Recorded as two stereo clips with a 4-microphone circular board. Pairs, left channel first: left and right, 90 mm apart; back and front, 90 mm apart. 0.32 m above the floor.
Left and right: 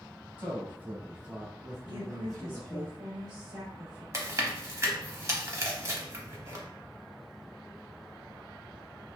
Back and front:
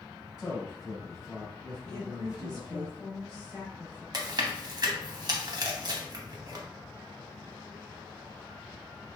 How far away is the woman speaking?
About 1.1 m.